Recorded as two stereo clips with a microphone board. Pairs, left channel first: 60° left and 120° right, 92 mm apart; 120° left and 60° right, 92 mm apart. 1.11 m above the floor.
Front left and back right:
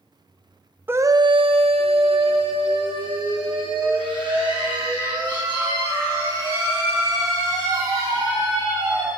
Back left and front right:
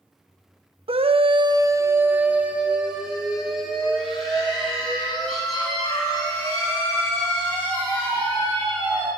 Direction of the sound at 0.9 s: 50° right.